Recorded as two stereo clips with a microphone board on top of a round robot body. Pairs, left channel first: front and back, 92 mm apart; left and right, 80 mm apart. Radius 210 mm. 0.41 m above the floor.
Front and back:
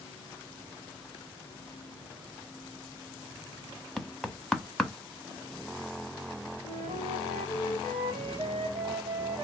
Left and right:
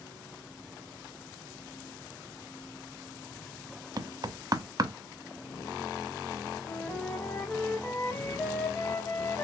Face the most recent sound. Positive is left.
turn(degrees=160)